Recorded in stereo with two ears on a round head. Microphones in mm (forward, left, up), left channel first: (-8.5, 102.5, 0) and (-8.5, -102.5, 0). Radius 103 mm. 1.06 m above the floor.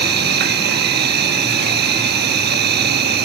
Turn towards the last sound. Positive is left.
turn(degrees=-50)  # may be behind; listen again after turning